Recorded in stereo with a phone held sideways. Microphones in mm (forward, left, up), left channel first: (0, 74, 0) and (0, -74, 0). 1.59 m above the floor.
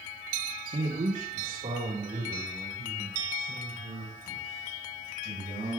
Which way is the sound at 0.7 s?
55° right (ahead or behind).